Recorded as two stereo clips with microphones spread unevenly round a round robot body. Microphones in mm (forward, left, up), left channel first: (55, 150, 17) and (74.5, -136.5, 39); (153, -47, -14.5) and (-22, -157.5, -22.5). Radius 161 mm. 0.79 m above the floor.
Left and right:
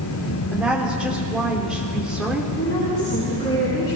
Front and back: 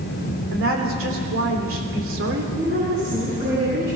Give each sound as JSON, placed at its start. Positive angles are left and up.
{"t": 0.5, "sound": "a woman speaking", "azimuth_deg": -175, "distance_m": 3.0}
{"t": 2.6, "sound": "a woman speaking", "azimuth_deg": 155, "distance_m": 8.0}